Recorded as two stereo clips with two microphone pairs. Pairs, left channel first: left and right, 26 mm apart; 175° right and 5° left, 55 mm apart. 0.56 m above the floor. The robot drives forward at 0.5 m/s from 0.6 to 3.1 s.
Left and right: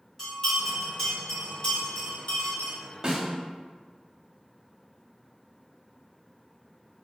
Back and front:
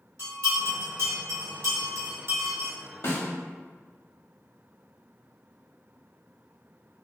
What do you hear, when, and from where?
0.2 s a bell: 20° left, 1.5 m; by 2.7 s 55° left, 0.6 m
3.0 s a snare drum: 145° right, 0.6 m; by 3.3 s 150° right, 0.6 m